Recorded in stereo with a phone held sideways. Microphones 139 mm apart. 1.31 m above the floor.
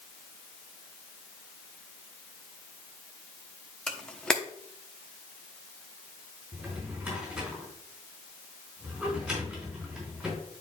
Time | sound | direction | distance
3.9 | a camera shutter | 5° left (ahead or behind) | 0.9 m
6.5 | a drawer | 5° right (ahead or behind) | 3.5 m